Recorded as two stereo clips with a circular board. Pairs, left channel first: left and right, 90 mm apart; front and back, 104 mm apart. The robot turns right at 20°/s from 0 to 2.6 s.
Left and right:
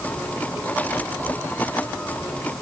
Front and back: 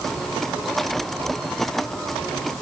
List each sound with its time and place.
Only background noise.